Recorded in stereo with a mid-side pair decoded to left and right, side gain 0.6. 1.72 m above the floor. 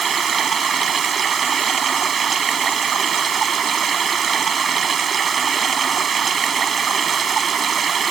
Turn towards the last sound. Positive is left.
turn(degrees=-35)